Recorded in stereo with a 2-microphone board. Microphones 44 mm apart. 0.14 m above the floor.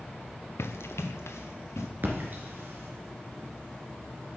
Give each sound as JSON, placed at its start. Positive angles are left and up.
{"t": 0.6, "sound": "running footsteps", "side_deg": 80, "distance_m": 0.8}
{"t": 2.0, "sound": "a splash", "side_deg": -50, "distance_m": 2.5}